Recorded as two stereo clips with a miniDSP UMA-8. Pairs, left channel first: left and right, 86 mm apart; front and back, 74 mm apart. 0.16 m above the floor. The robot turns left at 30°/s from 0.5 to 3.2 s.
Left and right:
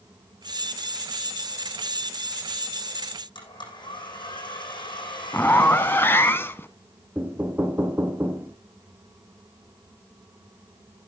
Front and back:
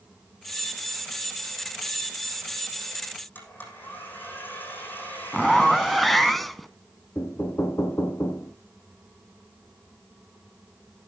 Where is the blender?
65° left, 7 m.